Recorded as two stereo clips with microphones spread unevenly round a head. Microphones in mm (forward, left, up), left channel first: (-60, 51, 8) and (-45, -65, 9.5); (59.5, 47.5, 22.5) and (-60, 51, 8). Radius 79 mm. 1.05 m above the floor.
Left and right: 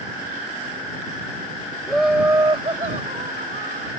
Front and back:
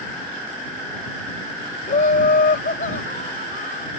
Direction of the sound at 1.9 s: 10° left.